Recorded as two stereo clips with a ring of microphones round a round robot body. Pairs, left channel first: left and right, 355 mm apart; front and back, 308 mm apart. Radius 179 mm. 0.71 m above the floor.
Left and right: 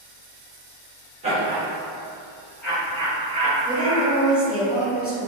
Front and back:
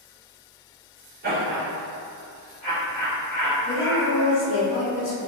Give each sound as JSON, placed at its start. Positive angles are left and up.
{"t": 1.2, "sound": "laughter", "azimuth_deg": -150, "distance_m": 1.2}
{"t": 3.6, "sound": "a woman speaking", "azimuth_deg": -20, "distance_m": 1.3}